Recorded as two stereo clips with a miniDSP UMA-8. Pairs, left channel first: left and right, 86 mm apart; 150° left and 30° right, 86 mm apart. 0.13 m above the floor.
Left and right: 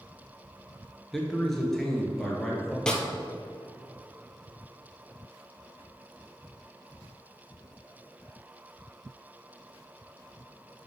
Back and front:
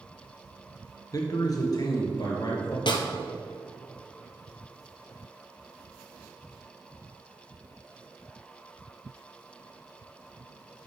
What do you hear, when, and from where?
1.1 s a man speaking: 175° left, 1.8 m
2.9 s a snare drum: 170° left, 1.1 m